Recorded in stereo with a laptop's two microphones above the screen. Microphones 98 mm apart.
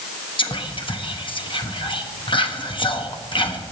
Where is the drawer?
I don't hear a drawer.